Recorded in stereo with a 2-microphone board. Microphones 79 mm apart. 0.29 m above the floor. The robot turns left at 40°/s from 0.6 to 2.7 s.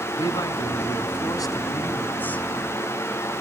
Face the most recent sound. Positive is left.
turn(degrees=5)